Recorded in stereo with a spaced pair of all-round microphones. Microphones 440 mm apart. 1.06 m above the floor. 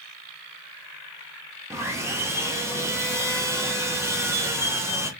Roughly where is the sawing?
Centre.